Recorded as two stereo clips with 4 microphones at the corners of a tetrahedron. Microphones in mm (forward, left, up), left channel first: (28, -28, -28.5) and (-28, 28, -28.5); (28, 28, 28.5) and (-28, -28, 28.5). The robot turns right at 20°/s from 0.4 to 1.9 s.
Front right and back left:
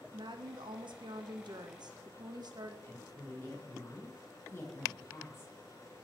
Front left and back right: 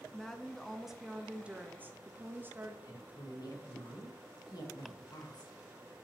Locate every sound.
0.1 s a woman speaking: 130° left, 0.6 m; by 2.7 s 160° left, 0.6 m
2.8 s a woman speaking: 10° left, 1.0 m